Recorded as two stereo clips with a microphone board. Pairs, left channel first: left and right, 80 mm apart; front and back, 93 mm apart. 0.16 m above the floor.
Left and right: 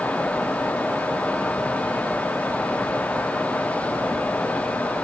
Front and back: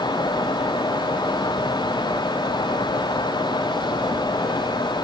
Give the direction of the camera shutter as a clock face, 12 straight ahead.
I don't hear a camera shutter.